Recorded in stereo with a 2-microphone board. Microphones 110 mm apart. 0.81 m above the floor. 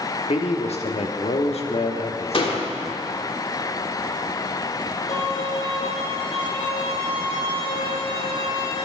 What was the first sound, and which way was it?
A man speaking, 70° left (ahead or behind).